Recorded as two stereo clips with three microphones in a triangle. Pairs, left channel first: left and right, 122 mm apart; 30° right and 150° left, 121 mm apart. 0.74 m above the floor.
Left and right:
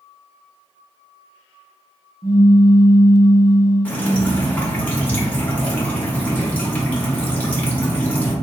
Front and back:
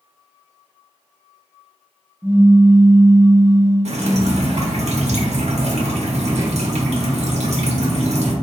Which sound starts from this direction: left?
A pop, at 2.2 s.